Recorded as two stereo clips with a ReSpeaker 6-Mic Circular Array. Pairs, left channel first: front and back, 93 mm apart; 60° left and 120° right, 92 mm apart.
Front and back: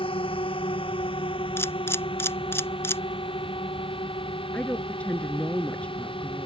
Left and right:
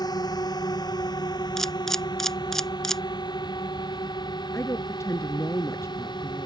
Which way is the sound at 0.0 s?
15° left.